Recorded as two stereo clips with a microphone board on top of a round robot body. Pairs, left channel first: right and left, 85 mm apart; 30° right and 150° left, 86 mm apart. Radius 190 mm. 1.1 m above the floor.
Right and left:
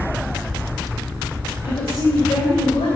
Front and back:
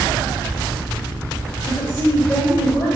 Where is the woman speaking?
95° right, 2.0 m; by 3.0 s 90° right, 3 m.